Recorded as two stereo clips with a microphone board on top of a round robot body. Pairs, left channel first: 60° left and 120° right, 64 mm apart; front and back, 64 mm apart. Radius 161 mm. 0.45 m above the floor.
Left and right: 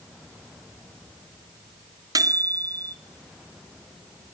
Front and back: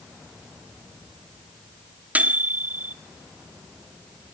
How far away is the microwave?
About 1.1 m.